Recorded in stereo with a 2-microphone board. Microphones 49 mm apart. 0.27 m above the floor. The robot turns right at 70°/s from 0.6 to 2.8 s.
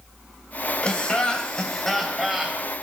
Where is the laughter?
20° left (ahead or behind), 1.0 m; by 2.6 s 15° right (ahead or behind), 1.0 m.